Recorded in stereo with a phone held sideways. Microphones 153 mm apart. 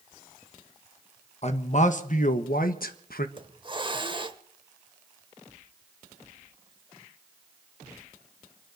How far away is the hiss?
About 1.1 m.